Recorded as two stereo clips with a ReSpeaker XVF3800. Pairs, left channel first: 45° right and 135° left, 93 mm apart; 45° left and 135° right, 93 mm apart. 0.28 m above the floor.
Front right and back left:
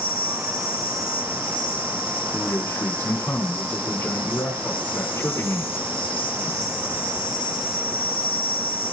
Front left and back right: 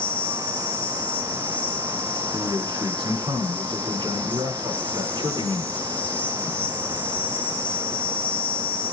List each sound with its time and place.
0.0 s an insect: 25° right, 3.5 m
2.3 s a man speaking: 105° right, 7 m